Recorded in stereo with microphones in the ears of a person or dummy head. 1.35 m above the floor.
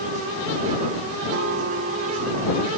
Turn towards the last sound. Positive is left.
turn(degrees=-65)  # may be behind; listen again after turning